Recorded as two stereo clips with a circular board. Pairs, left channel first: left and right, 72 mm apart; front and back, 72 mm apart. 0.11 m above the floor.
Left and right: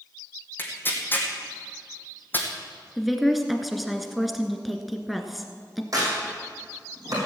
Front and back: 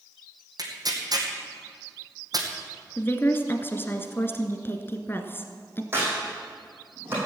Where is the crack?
125° right, 6 m.